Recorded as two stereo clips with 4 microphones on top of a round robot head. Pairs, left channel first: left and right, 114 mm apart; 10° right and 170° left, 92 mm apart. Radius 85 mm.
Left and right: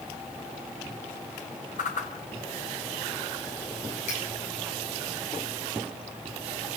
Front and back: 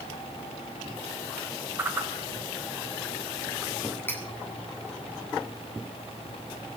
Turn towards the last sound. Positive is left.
turn(degrees=55)